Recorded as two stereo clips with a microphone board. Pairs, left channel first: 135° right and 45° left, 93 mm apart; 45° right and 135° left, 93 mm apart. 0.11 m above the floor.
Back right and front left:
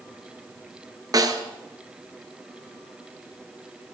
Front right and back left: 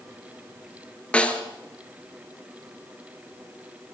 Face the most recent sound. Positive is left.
turn(degrees=25)